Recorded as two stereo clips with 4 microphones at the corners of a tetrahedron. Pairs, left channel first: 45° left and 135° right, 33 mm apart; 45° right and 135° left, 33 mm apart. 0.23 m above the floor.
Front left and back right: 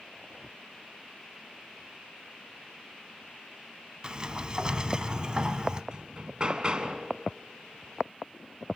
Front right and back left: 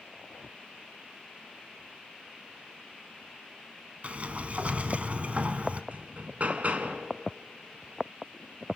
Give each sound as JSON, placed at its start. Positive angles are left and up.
{"t": 4.0, "sound": "a sliding door", "azimuth_deg": 170, "distance_m": 1.1}
{"t": 5.9, "sound": "hammering", "azimuth_deg": 170, "distance_m": 1.9}